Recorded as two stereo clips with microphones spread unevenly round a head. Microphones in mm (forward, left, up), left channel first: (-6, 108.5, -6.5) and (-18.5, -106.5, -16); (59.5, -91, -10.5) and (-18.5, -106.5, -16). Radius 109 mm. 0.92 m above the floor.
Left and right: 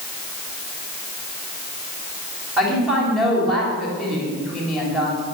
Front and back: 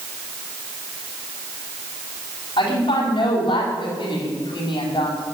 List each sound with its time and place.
2.6 s a woman speaking: 5° right, 4.5 m